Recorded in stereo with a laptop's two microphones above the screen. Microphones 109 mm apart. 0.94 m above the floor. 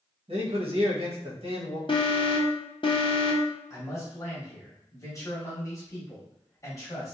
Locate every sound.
0.3 s a man speaking: 55° right (ahead or behind), 1.0 m
1.9 s an alarm: 45° left (ahead or behind), 0.6 m
3.7 s a man speaking: 30° left (ahead or behind), 1.1 m